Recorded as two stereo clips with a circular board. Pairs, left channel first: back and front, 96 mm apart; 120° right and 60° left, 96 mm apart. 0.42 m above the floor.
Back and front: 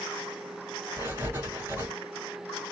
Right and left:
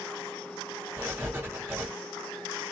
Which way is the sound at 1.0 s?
25° left.